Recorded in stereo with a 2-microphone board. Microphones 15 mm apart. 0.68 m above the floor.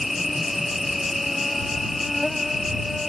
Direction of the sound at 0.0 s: 10° right (ahead or behind).